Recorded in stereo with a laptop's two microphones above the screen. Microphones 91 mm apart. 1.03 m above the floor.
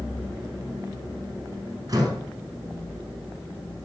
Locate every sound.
1.9 s a door slam: 40° right (ahead or behind), 6 m